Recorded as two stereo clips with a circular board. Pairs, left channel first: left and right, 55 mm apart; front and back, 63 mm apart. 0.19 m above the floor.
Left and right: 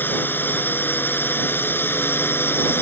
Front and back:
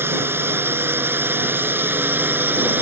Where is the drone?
135° left; by 2.8 s 130° left.